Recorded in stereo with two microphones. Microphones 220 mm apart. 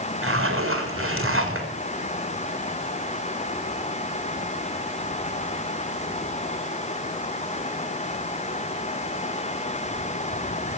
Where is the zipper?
75° right (ahead or behind), 3.5 m.